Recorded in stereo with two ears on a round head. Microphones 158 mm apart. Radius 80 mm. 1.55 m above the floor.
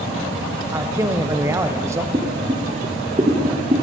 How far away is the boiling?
About 1.4 m.